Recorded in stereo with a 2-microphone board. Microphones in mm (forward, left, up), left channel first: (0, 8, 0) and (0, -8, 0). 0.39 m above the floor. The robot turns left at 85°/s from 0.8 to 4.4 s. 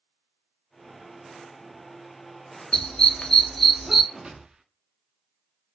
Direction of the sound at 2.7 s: 65° left (ahead or behind).